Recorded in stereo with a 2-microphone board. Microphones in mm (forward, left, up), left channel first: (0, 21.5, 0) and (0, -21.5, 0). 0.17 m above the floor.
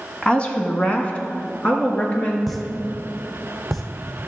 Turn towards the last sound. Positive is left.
turn(degrees=0)  # may be behind; listen again after turning